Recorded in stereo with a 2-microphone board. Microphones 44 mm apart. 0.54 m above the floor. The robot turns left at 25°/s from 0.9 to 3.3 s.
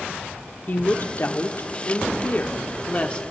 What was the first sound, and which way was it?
A woman speaking, 90° left.